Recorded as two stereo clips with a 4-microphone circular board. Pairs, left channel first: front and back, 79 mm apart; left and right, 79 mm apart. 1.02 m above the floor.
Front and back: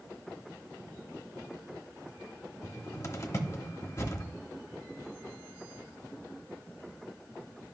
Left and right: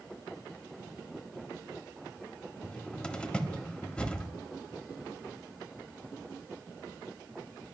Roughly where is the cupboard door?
Ahead.